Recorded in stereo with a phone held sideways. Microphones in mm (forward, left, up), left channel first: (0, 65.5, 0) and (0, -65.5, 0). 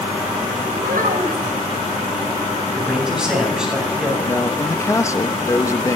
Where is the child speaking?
85° right, 4.5 m.